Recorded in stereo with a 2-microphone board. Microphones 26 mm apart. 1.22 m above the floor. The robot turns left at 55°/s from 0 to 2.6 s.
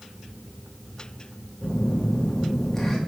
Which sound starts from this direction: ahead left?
A phone buzzing, at 1.6 s.